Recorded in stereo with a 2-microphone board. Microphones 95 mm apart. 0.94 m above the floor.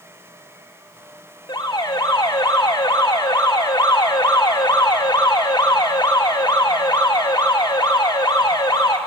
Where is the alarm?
50° left (ahead or behind), 2 m.